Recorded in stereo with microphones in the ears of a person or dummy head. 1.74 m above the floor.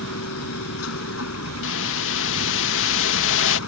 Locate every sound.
0.0 s a machine running: 85° left
1.6 s a whoosh: 75° left (ahead or behind)